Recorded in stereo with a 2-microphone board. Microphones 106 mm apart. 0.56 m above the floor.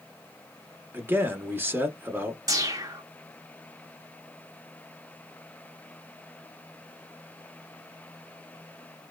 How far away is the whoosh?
About 0.7 m.